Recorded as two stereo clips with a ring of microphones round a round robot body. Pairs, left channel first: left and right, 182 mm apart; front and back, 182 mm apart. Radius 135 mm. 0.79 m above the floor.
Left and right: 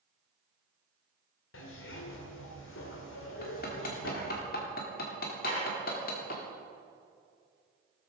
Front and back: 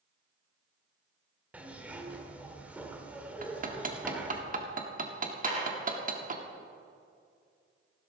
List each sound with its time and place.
1.5 s a zipper: 100° left, 1.8 m
3.4 s hammering: 135° left, 1.6 m
5.4 s dishes clattering: 130° left, 6.5 m